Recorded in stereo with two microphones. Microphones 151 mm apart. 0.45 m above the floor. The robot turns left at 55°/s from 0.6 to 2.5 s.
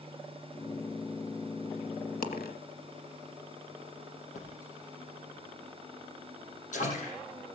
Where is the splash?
60° left (ahead or behind), 5.5 m.